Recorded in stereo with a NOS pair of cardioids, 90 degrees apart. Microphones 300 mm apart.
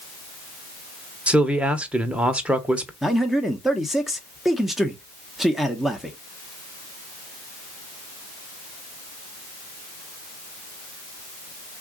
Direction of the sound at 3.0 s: Straight ahead.